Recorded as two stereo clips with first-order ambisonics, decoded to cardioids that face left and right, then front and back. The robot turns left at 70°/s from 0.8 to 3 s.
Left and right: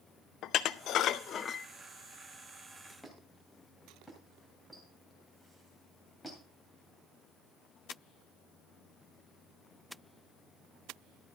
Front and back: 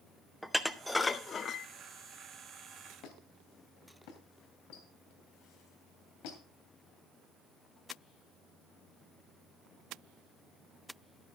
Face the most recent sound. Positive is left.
turn(degrees=5)